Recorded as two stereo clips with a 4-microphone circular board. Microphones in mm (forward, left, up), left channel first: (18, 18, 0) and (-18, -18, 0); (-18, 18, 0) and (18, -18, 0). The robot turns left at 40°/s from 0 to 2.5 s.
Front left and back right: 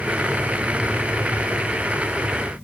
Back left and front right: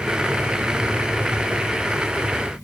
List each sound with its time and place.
Only background noise.